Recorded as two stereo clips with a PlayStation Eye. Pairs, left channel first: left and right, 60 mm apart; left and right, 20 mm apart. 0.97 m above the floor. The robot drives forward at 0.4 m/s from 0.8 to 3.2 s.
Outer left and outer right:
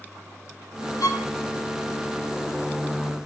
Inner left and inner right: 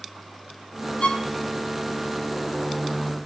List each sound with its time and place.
1.0 s a violin: 65° left (ahead or behind), 1.1 m; by 1.3 s 70° left (ahead or behind), 1.0 m